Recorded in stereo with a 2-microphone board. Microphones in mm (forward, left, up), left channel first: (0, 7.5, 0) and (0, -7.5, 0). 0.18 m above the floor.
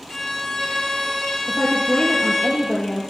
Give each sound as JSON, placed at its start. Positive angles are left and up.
{"t": 0.1, "sound": "a violin", "side_deg": 35, "distance_m": 4.5}
{"t": 1.5, "sound": "a woman speaking", "side_deg": 40, "distance_m": 3.5}